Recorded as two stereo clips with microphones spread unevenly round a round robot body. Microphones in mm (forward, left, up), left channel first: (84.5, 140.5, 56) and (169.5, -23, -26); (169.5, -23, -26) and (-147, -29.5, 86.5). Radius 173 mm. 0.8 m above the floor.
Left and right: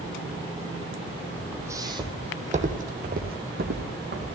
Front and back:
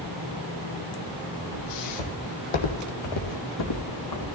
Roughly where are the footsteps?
Ahead left.